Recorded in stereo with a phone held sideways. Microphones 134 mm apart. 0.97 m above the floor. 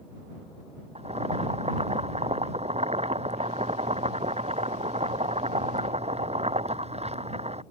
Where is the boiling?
50° right (ahead or behind).